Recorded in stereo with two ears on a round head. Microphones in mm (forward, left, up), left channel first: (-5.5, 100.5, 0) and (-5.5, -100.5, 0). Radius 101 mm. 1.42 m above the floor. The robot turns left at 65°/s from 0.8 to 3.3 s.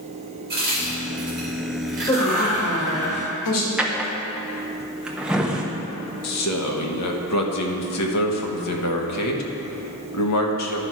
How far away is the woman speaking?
About 2 m.